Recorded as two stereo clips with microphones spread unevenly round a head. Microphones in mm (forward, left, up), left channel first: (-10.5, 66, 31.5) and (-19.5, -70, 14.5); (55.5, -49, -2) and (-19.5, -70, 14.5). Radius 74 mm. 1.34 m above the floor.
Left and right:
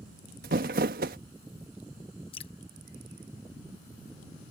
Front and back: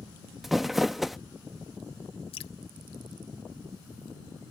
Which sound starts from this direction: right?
Crumpling, at 0.4 s.